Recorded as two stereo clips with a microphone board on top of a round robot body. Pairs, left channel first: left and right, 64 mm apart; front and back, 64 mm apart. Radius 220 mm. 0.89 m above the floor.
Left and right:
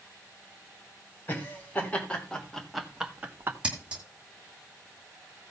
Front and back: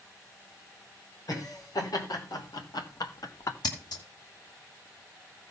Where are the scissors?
15° right, 2 m.